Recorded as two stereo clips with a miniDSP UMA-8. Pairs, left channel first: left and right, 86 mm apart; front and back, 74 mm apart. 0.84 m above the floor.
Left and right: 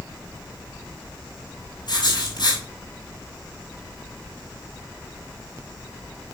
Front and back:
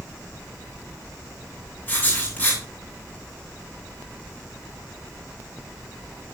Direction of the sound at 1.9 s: 65° left.